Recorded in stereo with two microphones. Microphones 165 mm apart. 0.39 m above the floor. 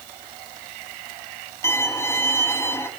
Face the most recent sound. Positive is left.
turn(degrees=15)  # may be behind; listen again after turning